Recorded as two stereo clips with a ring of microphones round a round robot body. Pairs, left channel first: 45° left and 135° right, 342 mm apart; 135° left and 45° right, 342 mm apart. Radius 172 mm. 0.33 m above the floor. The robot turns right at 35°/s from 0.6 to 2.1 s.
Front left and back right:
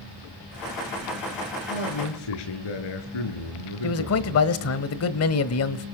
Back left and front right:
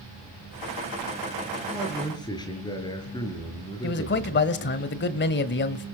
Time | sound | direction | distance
1.7 | a man speaking | 45° left | 5.5 m
3.8 | a man speaking | 80° left | 1.4 m